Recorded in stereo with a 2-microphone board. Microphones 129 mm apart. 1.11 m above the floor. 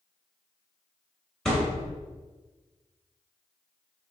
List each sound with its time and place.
1.4 s a thud: 5° left (ahead or behind), 0.9 m